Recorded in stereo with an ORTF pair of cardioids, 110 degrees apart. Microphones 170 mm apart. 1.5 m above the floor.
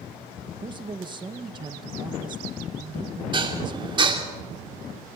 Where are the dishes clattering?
30° right, 2.5 m.